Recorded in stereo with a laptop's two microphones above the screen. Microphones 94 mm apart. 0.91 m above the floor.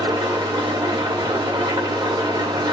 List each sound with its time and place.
0.0 s an engine running: 50° right (ahead or behind), 1.7 m